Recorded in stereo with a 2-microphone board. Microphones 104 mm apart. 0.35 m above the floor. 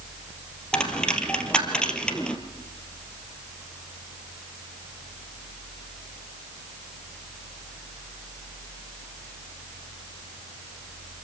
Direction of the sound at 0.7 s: 10° left (ahead or behind).